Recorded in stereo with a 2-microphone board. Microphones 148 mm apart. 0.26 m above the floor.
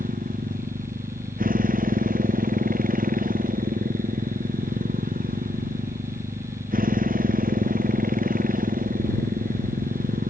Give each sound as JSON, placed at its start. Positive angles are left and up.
{"t": 0.0, "sound": "a motorcycle", "side_deg": -75}